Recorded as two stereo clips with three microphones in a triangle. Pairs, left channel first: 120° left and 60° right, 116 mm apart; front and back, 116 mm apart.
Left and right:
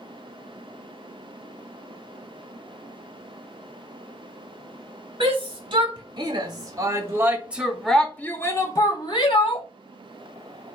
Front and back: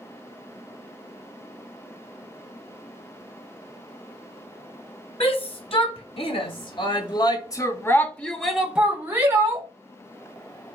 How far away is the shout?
About 2.0 m.